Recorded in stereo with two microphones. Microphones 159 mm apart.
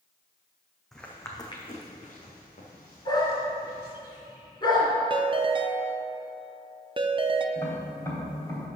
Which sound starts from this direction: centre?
Footsteps, at 0.9 s.